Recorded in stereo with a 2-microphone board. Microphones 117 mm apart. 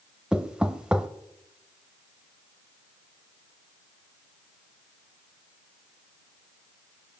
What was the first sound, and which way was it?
Knocking, 10° right (ahead or behind).